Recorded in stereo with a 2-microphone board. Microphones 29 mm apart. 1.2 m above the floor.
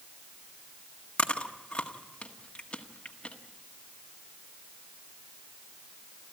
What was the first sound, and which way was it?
Chewing, 40° left (ahead or behind).